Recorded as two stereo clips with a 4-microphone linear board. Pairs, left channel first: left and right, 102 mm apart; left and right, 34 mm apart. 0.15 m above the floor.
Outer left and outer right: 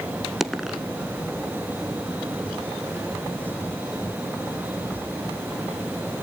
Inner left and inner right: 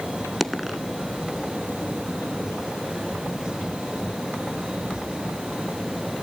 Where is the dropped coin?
Centre (ahead or behind), 0.7 m.